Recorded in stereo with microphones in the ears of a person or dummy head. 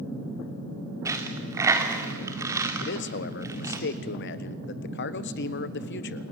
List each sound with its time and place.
1.1 s a dropped coin: 10° right (ahead or behind), 1.9 m
2.8 s a man speaking: 60° left (ahead or behind), 1.0 m